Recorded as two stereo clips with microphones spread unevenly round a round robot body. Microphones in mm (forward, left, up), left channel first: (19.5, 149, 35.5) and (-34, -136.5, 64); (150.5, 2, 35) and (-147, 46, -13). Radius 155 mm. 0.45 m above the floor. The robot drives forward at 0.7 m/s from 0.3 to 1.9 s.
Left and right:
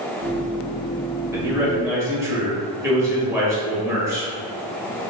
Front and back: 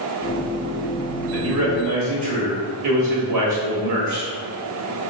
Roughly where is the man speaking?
Behind.